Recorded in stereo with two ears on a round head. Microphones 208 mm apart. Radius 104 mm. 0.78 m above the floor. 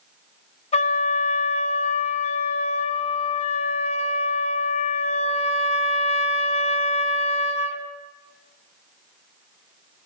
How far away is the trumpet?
About 2.5 m.